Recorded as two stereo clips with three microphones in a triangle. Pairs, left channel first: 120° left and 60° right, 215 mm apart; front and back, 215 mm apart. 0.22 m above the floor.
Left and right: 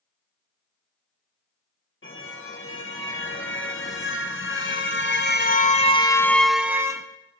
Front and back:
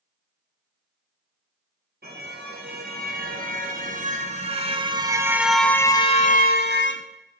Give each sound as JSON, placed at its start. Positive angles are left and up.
{"t": 2.0, "sound": "a car horn", "azimuth_deg": 140, "distance_m": 3.0}